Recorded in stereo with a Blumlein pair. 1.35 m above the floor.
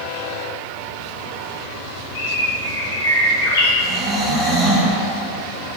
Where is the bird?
55° left, 1.1 m.